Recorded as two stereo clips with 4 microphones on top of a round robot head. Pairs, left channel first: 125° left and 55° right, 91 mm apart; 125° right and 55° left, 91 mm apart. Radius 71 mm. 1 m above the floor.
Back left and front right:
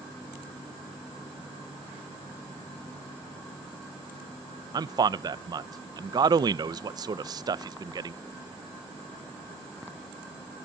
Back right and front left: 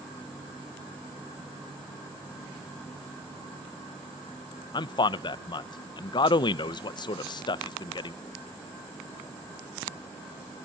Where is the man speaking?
95° right, 0.5 m.